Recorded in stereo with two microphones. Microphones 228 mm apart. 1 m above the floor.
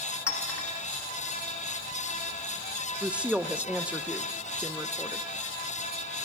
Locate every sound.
0.3 s a clink: 85° left, 1.5 m
3.0 s a woman speaking: 5° right (ahead or behind), 0.5 m